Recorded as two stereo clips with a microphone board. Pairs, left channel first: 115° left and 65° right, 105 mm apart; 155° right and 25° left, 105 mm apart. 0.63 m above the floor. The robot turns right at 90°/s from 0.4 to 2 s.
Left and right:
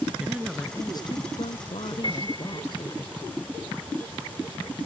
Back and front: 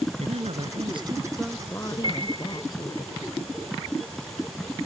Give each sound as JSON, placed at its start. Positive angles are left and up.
{"t": 0.2, "sound": "a woman speaking", "azimuth_deg": 10}
{"t": 2.0, "sound": "a piano", "azimuth_deg": 65}